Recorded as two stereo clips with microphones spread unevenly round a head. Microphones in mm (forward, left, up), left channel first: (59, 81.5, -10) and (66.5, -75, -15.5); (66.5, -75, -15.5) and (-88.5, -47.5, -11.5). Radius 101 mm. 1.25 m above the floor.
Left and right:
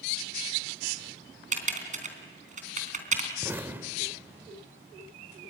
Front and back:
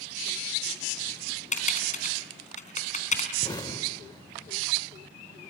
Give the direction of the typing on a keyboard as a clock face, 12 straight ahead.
2 o'clock.